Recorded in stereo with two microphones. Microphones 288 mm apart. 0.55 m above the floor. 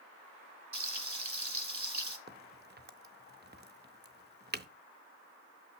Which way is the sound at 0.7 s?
80° right.